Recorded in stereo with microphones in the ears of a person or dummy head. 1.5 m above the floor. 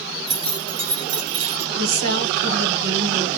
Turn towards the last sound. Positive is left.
turn(degrees=-75)  # may be behind; listen again after turning